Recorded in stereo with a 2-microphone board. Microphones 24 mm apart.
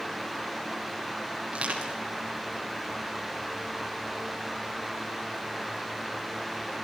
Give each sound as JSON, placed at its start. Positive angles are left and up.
{"t": 1.5, "sound": "crushing", "side_deg": -65, "distance_m": 9.0}